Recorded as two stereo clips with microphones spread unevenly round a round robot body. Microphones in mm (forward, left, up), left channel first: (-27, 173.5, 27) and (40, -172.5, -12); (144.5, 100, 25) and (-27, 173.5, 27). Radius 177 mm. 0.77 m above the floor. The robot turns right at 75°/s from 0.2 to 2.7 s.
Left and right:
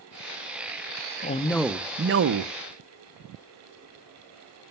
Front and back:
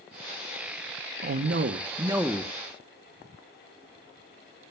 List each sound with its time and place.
1.2 s a man speaking: 165° left, 0.7 m; by 2.5 s 95° right, 0.7 m